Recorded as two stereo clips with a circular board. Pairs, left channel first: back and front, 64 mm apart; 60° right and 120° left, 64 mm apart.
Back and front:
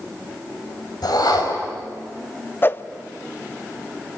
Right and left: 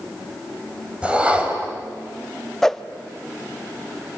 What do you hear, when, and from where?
1.0 s a whoosh: 170° right, 3.5 m
2.6 s a whoosh: 140° right, 0.7 m